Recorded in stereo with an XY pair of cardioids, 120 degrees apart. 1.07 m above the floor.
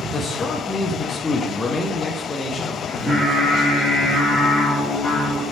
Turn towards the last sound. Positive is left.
turn(degrees=0)